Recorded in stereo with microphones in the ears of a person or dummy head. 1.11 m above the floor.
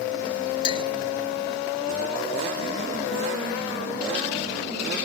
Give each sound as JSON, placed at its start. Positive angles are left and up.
{"t": 0.6, "sound": "a clink", "side_deg": 30}